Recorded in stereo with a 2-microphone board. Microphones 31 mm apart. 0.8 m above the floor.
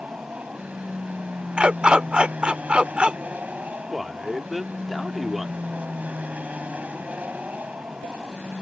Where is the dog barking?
35° right (ahead or behind).